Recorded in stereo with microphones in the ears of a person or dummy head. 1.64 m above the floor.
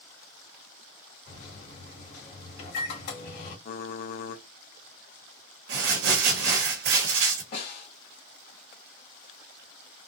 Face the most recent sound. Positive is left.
turn(degrees=60)  # may be behind; listen again after turning